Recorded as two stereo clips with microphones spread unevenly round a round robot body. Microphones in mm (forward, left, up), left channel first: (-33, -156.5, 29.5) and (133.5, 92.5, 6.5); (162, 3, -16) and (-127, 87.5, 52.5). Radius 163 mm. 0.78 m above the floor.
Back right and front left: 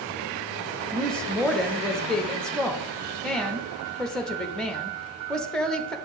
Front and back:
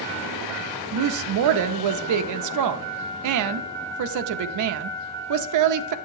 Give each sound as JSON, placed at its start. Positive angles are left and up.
{"t": 0.9, "sound": "a woman speaking", "azimuth_deg": 145, "distance_m": 0.7}